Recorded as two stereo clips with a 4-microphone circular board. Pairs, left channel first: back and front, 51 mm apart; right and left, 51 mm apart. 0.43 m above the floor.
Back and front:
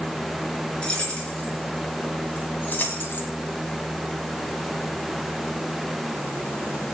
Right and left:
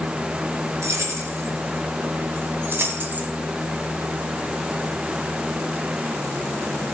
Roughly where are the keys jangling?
Left.